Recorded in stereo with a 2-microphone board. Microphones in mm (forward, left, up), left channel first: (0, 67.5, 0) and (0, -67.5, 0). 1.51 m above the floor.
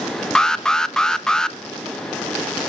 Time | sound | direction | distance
0.3 | an alarm | 5° left (ahead or behind) | 0.7 m